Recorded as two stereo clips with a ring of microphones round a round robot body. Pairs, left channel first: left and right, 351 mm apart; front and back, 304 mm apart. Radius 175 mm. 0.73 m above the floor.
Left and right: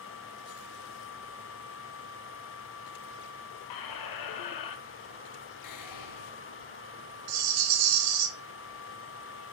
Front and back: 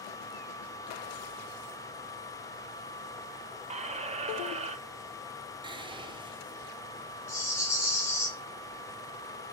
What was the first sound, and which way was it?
A squeak, 110° left.